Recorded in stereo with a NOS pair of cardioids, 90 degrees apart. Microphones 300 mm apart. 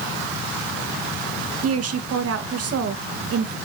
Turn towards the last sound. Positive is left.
turn(degrees=-55)